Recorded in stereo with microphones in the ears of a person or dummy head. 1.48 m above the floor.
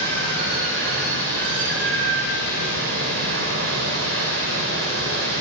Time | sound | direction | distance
0.0 | running water | 55° right (ahead or behind) | 1.8 m